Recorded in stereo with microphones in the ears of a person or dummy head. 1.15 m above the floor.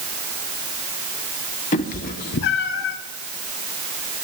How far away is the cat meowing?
About 1.4 m.